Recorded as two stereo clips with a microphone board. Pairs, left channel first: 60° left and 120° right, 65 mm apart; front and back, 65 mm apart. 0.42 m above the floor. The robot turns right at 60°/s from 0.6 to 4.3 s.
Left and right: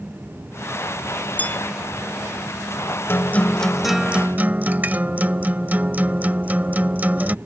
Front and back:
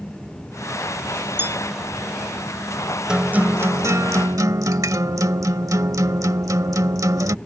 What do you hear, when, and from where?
1.4 s a bell: 125° left; by 1.6 s 140° left
3.1 s a guitar: 105° left; by 7.3 s straight behind